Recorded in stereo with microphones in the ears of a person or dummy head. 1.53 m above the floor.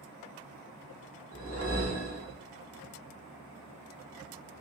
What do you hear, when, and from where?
1.3 s a whoosh: 45° left (ahead or behind), 1.0 m